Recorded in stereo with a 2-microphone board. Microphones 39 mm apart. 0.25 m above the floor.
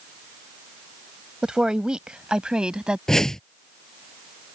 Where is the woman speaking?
20° right (ahead or behind); by 3.0 s 25° right (ahead or behind).